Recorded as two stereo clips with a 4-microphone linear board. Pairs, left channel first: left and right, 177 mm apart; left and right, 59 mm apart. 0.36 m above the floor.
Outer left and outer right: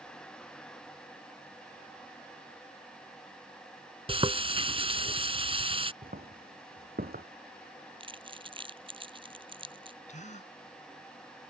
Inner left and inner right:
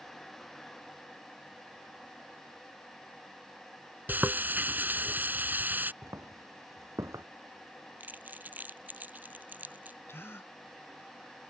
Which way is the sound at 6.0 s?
65° right (ahead or behind).